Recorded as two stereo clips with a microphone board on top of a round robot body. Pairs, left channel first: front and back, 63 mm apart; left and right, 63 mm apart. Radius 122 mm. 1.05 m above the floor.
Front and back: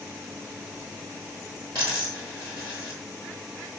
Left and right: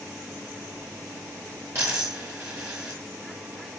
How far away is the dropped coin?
About 1.4 m.